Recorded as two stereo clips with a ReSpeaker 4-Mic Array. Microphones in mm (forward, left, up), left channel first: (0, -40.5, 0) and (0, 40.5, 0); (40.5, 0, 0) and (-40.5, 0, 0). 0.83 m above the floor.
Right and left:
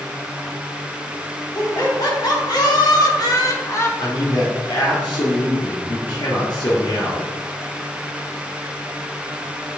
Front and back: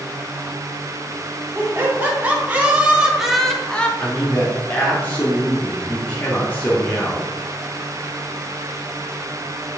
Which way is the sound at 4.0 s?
70° right.